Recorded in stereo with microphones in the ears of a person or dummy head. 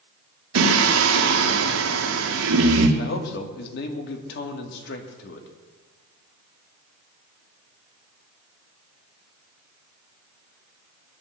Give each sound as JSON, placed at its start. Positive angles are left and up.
{"t": 0.6, "sound": "singing", "side_deg": -80, "distance_m": 1.8}
{"t": 3.0, "sound": "a man speaking", "side_deg": 65, "distance_m": 2.5}